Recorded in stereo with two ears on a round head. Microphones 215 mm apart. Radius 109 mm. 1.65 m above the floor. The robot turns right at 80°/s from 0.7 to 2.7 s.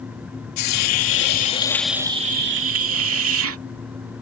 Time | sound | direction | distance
0.6 | a hiss | 85° left | ?